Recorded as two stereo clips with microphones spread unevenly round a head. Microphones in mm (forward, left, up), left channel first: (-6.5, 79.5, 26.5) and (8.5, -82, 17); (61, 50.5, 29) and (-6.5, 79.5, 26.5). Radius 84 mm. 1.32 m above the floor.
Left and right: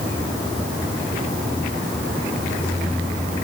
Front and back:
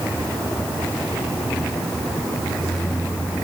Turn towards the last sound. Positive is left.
No sound to turn to.